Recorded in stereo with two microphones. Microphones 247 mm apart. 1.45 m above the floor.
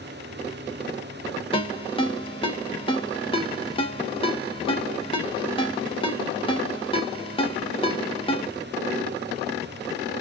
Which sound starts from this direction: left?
A ringtone, at 1.5 s.